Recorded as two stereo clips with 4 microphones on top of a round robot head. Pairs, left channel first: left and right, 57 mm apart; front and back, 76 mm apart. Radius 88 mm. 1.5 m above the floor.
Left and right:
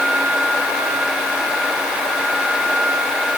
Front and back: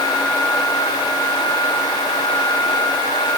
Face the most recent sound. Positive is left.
No sound to turn to.